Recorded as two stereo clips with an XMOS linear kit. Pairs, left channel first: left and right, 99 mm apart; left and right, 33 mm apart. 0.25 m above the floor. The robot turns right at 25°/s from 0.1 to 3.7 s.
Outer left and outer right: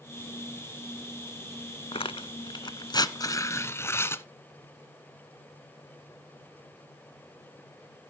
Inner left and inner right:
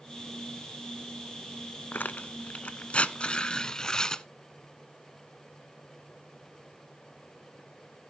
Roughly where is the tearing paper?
Left.